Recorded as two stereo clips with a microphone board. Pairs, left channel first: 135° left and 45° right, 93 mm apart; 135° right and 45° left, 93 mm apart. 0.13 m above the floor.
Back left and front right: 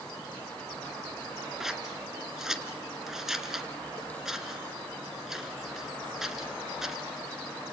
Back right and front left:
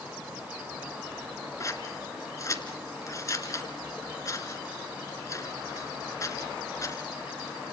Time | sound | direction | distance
1.6 | scissors | 125° right | 2.0 m